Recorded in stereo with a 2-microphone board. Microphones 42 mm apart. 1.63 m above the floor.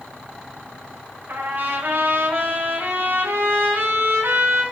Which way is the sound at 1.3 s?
50° right (ahead or behind).